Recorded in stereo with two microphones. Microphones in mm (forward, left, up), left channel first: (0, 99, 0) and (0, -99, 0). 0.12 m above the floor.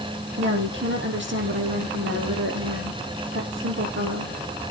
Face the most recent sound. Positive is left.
turn(degrees=-70)  # may be behind; listen again after turning